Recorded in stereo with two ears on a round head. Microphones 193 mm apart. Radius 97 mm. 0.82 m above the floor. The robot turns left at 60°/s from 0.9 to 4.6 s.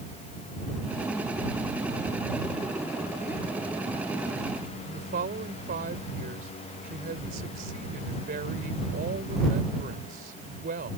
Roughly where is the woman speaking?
Right.